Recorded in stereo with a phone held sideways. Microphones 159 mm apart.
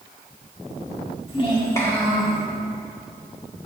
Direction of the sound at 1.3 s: 40° left (ahead or behind).